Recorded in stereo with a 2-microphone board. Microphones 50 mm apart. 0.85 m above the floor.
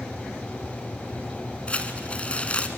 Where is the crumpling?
25° left (ahead or behind), 1.3 m.